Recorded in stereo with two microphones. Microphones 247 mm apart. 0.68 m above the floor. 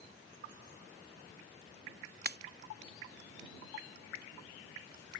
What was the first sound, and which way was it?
A pop, 40° right (ahead or behind).